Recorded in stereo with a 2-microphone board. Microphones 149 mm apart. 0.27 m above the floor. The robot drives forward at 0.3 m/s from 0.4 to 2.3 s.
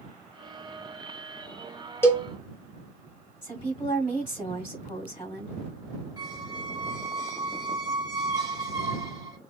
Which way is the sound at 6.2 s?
25° right (ahead or behind).